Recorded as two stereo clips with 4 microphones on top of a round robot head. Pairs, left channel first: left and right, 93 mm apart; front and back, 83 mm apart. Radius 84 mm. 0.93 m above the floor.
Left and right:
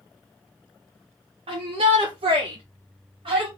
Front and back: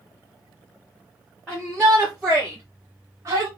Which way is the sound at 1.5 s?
85° right.